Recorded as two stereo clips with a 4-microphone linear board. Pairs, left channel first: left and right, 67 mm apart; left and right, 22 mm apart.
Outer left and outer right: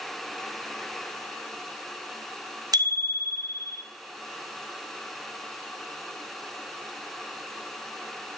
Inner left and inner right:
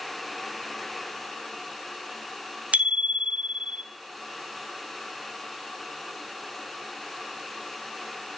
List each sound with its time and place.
2.7 s a bicycle bell: 80° right, 3 m